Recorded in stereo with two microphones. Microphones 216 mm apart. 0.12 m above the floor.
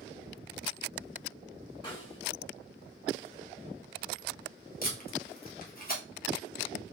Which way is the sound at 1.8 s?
20° left (ahead or behind).